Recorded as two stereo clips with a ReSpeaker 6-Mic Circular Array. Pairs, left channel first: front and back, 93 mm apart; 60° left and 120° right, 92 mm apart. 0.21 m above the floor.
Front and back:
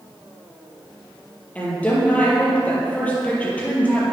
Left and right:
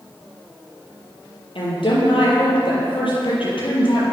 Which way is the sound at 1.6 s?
75° left.